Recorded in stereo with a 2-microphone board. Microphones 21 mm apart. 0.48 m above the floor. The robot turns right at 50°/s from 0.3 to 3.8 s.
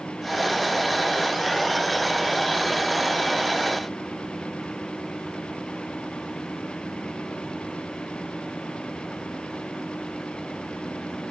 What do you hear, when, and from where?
Only background noise.